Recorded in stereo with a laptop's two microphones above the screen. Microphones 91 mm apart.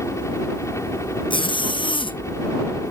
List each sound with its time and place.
0.0 s a helicopter: 30° left (ahead or behind)
1.3 s a zipper: 65° left (ahead or behind)